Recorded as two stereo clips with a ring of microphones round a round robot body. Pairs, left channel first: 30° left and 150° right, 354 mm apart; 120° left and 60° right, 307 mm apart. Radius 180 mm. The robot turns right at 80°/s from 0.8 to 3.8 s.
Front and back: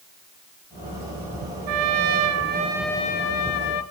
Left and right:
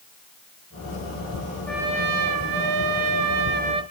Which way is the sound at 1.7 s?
155° right.